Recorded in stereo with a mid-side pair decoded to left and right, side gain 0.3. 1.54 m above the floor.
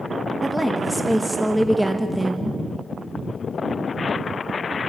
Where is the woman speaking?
10° right, 1.6 m.